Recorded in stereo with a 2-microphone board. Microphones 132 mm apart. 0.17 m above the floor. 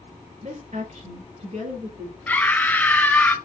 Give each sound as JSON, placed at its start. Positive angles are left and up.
{"t": 0.4, "sound": "a woman speaking", "side_deg": -60, "distance_m": 3.0}
{"t": 2.3, "sound": "a scream", "side_deg": 10, "distance_m": 1.0}